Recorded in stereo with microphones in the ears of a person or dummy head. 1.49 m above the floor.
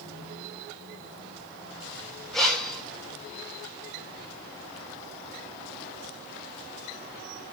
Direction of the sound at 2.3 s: 5° left (ahead or behind).